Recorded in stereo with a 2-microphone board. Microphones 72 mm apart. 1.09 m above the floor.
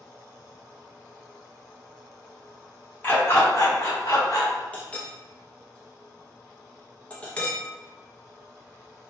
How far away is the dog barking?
About 0.9 m.